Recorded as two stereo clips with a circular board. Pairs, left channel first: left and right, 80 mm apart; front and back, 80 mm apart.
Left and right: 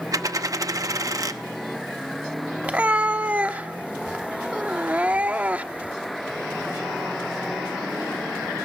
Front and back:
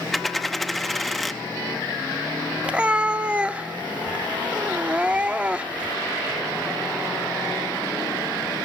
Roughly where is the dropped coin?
Right.